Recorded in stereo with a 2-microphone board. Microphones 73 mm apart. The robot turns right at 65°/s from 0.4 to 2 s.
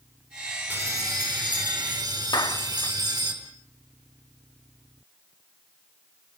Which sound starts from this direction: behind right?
A bell, at 0.7 s.